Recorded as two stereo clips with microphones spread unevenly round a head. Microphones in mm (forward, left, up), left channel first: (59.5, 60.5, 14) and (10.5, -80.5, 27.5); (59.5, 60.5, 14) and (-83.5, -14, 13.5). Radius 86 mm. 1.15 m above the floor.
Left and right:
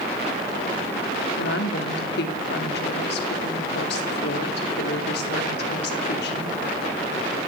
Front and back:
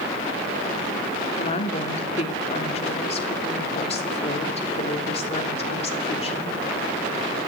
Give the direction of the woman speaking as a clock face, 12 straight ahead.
9 o'clock.